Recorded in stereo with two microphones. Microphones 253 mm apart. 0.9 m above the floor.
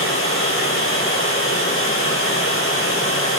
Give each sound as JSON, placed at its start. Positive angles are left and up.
{"t": 0.0, "sound": "running water", "side_deg": 55, "distance_m": 9.0}